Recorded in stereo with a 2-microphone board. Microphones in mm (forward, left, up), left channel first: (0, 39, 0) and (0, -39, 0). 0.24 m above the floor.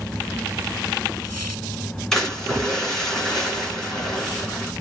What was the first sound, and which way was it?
A splash, 10° left (ahead or behind).